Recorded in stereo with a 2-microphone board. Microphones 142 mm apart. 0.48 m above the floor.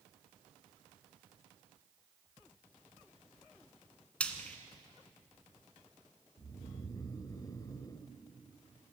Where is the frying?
10° left (ahead or behind), 1.8 m.